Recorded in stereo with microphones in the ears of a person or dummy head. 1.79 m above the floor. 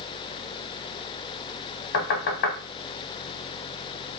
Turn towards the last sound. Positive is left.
turn(degrees=50)  # may be behind; listen again after turning